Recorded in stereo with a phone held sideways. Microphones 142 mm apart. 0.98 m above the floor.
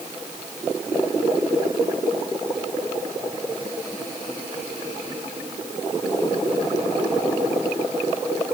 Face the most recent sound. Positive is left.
No sound to turn to.